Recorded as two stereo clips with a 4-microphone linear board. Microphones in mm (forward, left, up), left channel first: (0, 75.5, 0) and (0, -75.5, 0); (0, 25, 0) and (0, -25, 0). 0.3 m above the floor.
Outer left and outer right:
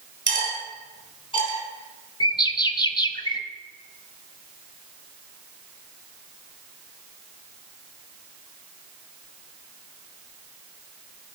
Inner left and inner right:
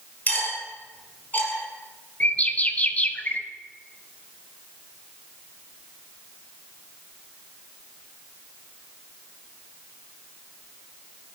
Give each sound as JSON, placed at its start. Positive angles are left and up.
{"t": 0.3, "sound": "cutlery clinking", "side_deg": 30, "distance_m": 3.5}
{"t": 2.2, "sound": "a bird", "side_deg": 30, "distance_m": 0.7}